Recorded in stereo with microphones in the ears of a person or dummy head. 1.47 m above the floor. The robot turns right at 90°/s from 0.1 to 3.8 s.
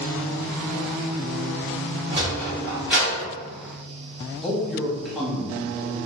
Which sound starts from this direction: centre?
A man speaking, at 4.4 s.